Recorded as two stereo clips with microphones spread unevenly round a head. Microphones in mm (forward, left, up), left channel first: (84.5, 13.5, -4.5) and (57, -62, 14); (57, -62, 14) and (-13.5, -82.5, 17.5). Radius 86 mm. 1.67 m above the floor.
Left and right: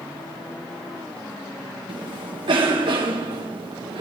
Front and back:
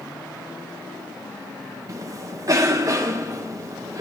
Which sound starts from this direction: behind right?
A cough, at 1.9 s.